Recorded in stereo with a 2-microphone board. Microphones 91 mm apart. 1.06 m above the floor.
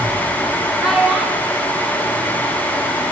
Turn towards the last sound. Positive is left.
turn(degrees=5)  # may be behind; listen again after turning